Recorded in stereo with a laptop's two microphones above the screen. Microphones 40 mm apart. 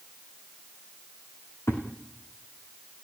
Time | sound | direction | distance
1.7 | a thud | 75° left (ahead or behind) | 4 m